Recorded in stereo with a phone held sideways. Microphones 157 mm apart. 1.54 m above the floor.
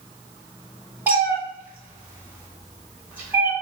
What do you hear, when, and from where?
1.1 s a cat meowing: 10° right (ahead or behind), 1.0 m